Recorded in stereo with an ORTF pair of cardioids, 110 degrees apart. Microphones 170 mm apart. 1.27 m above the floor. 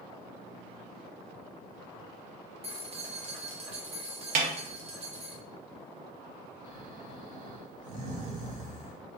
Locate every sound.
2.6 s keys jangling: 40° right, 0.9 m
4.3 s a snare drum: 55° right, 0.8 m
6.6 s snoring: 55° right, 1.1 m